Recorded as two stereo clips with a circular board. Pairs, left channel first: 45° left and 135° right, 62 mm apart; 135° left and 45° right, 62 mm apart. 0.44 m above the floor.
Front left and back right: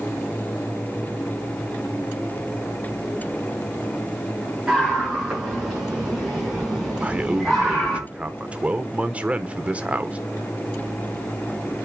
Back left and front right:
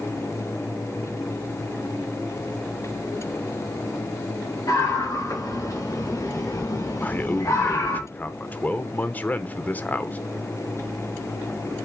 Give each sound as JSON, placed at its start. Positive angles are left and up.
{"t": 4.7, "sound": "a scream", "azimuth_deg": 140, "distance_m": 4.5}
{"t": 7.0, "sound": "a man speaking", "azimuth_deg": 175, "distance_m": 0.8}